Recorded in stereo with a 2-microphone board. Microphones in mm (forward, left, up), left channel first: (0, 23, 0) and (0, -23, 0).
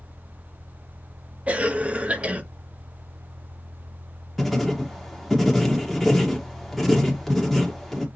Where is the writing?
Centre (ahead or behind), 1.4 m.